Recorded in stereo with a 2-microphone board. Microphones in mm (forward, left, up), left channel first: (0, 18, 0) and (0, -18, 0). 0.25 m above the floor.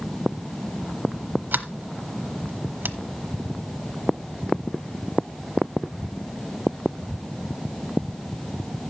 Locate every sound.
1.5 s a sliding door: 55° right (ahead or behind), 1.0 m